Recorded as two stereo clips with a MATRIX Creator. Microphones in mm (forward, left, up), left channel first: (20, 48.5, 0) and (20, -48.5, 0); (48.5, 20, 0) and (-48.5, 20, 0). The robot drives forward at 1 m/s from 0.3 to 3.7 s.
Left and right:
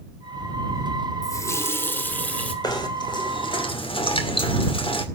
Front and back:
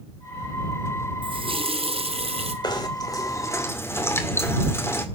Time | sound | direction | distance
1.2 | a running tap | 145° left | 0.8 m
2.6 | knocking | 45° left | 2.5 m